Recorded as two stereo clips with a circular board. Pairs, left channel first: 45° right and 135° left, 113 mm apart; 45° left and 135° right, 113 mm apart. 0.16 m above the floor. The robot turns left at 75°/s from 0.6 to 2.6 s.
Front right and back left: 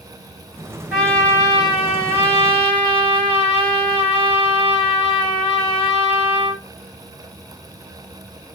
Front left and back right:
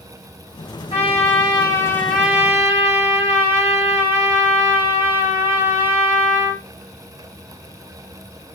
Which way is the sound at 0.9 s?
55° left.